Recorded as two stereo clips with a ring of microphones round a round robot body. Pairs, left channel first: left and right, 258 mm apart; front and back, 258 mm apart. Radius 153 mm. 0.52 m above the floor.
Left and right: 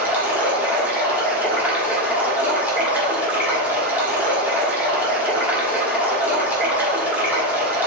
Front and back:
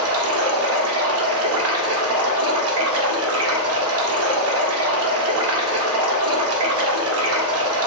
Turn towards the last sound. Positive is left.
turn(degrees=-175)